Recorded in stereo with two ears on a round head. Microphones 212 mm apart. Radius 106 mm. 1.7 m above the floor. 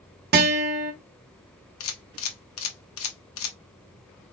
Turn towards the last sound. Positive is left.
turn(degrees=60)  # may be behind; listen again after turning